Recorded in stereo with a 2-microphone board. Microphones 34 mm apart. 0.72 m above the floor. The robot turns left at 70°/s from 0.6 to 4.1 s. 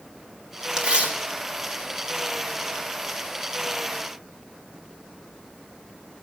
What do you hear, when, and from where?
0.8 s tearing paper: 30° right (ahead or behind), 1.6 m; by 2.3 s 25° right (ahead or behind), 1.6 m